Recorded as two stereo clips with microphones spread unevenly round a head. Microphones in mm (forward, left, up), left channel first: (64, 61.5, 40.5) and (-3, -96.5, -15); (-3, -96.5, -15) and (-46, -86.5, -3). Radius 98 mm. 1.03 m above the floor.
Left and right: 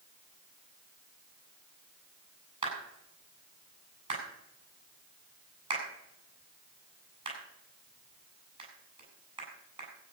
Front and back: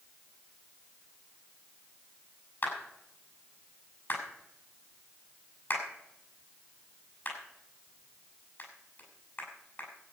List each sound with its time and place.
2.6 s a clap: 50° right, 8 m